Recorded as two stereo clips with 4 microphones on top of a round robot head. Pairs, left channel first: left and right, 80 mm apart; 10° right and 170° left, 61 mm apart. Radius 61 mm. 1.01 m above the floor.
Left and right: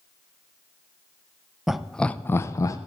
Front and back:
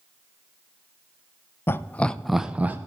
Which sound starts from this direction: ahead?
Laughter, at 1.7 s.